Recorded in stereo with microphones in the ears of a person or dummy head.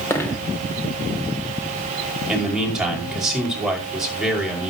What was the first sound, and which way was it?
A dropped coin, 15° left (ahead or behind).